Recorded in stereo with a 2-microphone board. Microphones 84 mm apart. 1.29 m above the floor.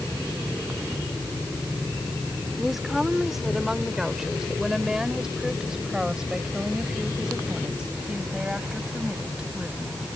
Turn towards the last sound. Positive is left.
turn(degrees=-10)  # may be behind; listen again after turning